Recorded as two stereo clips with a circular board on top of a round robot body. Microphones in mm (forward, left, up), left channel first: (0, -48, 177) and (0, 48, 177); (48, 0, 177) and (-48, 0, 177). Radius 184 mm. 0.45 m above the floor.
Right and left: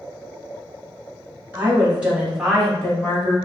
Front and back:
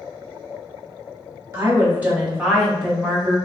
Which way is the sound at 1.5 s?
140° left.